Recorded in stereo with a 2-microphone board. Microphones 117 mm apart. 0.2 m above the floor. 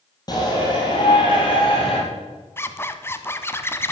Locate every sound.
0.3 s a shout: 35° left (ahead or behind), 5 m; by 2.0 s 50° left (ahead or behind), 4.5 m
2.6 s a zipper: 20° left (ahead or behind), 1.1 m